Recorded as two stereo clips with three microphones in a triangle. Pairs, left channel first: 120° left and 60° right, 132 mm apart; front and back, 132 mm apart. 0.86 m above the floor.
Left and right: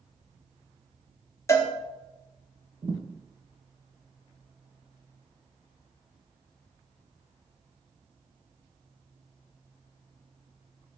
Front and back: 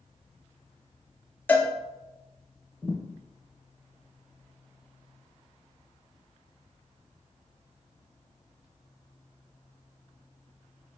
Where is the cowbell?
65° left, 0.6 m.